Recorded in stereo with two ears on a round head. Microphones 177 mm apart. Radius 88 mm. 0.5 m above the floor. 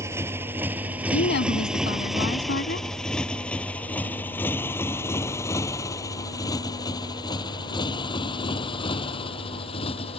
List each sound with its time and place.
0.0 s a motorcycle: 15° right (ahead or behind); by 10.2 s 30° left (ahead or behind)
1.1 s a woman speaking: 55° left (ahead or behind)